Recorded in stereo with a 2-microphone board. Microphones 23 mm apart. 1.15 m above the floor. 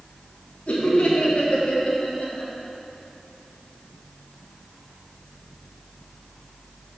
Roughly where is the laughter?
Left.